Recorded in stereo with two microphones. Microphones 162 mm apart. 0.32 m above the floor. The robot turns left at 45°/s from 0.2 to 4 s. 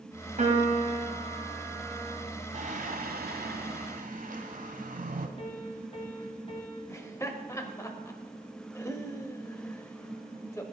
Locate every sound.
0.4 s a piano: 110° right, 2 m; by 2.2 s 170° left, 2 m
2.5 s singing: 55° right, 1.1 m; by 5.3 s 120° right, 1.1 m
5.4 s a piano: 35° left (ahead or behind), 2.5 m
6.9 s laughter: 15° left (ahead or behind), 1.1 m